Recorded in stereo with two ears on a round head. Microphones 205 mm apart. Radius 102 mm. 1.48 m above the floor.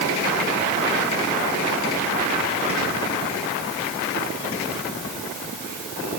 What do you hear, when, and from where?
Only background noise.